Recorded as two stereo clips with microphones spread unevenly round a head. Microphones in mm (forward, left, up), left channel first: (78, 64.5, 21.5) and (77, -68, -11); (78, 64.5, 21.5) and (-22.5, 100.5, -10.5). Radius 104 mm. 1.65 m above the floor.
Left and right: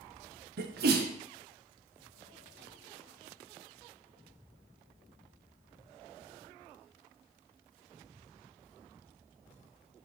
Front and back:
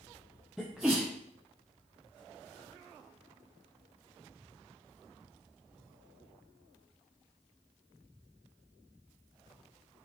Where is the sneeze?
110° right, 0.8 m.